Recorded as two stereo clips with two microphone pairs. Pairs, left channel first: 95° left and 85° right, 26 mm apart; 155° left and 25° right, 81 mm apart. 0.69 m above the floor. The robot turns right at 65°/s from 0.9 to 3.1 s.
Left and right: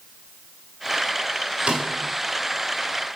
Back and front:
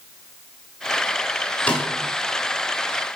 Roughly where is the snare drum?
Behind right.